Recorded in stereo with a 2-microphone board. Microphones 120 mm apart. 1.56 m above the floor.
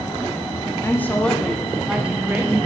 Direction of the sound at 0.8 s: 20° left (ahead or behind).